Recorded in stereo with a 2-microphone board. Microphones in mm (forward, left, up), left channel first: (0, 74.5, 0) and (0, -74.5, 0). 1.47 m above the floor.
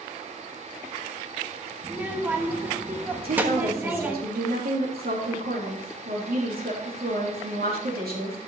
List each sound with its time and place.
1.8 s a child speaking: 10° right (ahead or behind), 1.2 m
3.2 s a woman speaking: 90° right, 3 m